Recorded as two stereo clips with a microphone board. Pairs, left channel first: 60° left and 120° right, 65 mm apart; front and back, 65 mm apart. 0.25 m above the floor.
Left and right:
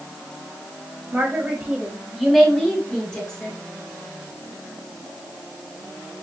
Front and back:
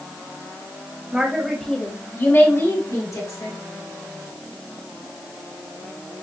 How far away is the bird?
I don't hear a bird.